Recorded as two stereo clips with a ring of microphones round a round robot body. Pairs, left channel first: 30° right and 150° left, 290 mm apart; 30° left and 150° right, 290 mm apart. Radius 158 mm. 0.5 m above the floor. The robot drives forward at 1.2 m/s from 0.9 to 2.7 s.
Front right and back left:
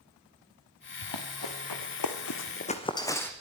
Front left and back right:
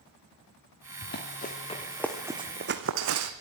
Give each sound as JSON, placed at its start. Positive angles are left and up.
{"t": 1.0, "sound": "running footsteps", "azimuth_deg": -25, "distance_m": 4.0}